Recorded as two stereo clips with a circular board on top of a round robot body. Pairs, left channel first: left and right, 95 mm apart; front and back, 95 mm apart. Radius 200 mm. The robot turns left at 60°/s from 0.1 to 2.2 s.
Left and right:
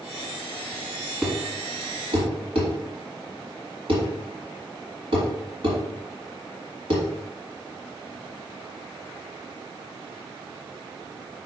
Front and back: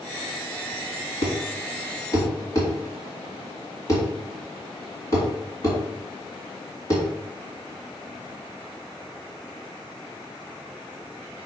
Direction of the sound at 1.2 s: Straight ahead.